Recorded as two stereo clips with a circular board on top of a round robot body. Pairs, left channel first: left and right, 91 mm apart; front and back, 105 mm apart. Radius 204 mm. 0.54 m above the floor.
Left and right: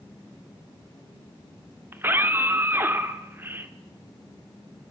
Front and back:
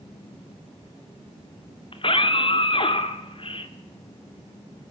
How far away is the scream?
About 2.5 m.